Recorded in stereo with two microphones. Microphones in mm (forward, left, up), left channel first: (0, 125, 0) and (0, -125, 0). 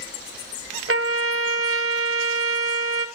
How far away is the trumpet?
About 1.0 m.